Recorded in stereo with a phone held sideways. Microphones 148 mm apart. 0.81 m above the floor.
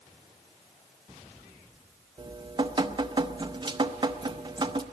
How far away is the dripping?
About 0.7 m.